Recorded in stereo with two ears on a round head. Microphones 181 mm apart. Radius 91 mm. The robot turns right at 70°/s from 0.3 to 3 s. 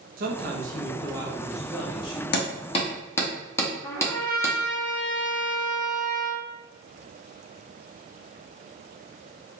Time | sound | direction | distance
0.2 | a man speaking | 90° right | 0.7 m
2.3 | hammering | 55° left (ahead or behind) | 0.8 m
3.8 | a trumpet | 10° left (ahead or behind) | 0.7 m